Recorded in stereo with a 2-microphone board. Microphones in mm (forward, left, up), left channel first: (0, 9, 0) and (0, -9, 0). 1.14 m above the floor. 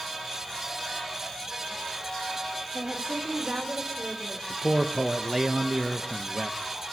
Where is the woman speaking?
60° right (ahead or behind), 3 m; by 4.4 s 45° right (ahead or behind), 4.5 m.